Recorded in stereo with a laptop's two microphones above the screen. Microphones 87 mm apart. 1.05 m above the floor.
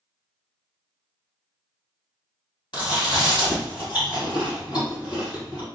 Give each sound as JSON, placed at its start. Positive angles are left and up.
{"t": 2.7, "sound": "chewing", "side_deg": 60, "distance_m": 1.4}